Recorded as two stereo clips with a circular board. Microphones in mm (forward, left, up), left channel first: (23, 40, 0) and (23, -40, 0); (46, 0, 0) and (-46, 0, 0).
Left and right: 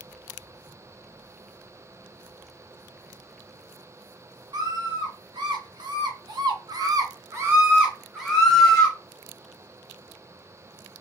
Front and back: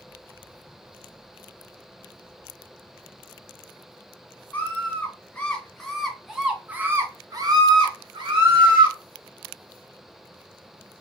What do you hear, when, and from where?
4.5 s a scream: 70° right, 1.6 m; by 9.0 s 170° left, 1.1 m